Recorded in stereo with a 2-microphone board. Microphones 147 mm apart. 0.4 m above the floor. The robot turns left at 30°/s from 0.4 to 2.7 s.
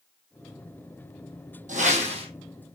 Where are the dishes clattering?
I don't hear dishes clattering.